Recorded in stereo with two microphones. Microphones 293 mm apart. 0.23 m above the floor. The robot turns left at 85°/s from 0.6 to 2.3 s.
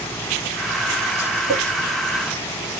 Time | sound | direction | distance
1.5 | a clink | 15° left (ahead or behind) | 1.5 m